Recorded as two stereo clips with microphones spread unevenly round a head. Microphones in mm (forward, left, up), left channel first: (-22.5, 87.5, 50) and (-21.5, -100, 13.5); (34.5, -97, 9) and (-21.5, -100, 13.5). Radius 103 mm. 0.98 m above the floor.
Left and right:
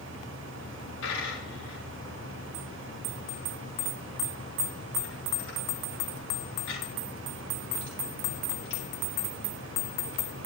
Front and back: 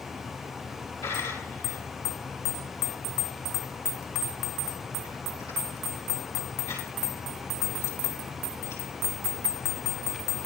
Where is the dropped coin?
60° left, 8.5 m.